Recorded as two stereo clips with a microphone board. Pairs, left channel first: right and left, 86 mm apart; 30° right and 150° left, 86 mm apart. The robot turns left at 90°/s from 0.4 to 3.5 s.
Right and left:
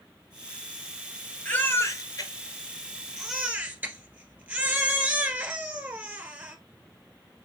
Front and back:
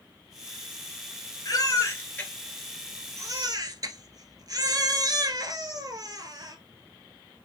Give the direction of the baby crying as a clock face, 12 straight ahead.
1 o'clock.